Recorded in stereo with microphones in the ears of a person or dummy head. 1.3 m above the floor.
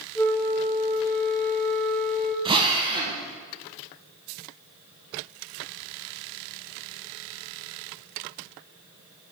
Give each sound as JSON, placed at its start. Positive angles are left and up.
{"t": 0.1, "sound": "a flute", "side_deg": 5, "distance_m": 1.4}
{"t": 2.5, "sound": "a drill", "side_deg": -20, "distance_m": 1.1}